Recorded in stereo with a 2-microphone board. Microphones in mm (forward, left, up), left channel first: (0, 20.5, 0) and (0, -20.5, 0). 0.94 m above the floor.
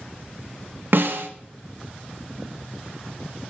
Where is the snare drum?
65° right (ahead or behind), 0.7 m.